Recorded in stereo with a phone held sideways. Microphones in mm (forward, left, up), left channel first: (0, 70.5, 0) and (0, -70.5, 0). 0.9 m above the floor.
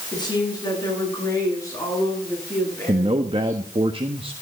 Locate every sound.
0.1 s a woman speaking: 30° left (ahead or behind), 9.5 m; by 3.6 s 15° left (ahead or behind), 12.5 m
2.9 s a man speaking: 40° right (ahead or behind), 1.2 m